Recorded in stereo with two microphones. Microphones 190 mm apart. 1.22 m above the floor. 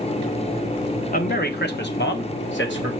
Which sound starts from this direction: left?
A man speaking, at 1.1 s.